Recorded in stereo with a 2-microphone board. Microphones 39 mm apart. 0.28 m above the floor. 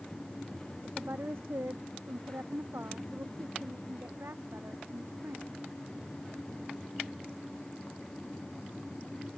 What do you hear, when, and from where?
0.8 s a woman speaking: 75° right (ahead or behind); by 5.6 s 85° right